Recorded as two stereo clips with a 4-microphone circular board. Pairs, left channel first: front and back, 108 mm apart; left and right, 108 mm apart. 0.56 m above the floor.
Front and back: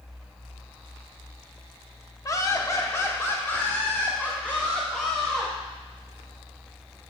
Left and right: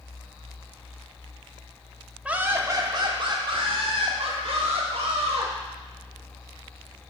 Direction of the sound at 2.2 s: 20° right.